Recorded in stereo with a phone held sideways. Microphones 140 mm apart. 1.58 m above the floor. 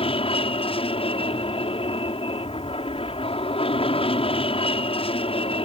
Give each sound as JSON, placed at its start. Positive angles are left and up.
{"t": 0.0, "sound": "an aircraft", "side_deg": 40}